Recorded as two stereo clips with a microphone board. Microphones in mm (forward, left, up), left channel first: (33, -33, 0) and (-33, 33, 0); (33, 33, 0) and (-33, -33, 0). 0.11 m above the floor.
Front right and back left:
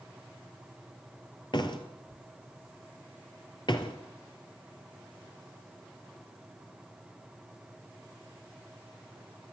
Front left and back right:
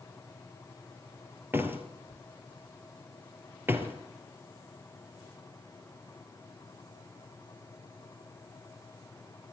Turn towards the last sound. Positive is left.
turn(degrees=-70)